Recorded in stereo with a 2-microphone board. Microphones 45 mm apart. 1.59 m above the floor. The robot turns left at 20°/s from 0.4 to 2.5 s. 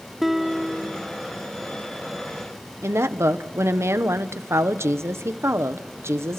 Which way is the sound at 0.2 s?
5° right (ahead or behind).